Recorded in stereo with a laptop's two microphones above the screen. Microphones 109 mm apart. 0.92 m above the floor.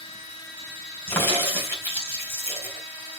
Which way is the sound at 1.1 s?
20° left (ahead or behind).